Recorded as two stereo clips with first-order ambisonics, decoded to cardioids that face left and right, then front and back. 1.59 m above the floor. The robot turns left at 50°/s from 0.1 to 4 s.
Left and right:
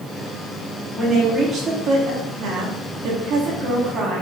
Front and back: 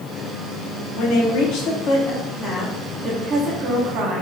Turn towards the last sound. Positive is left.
turn(degrees=-145)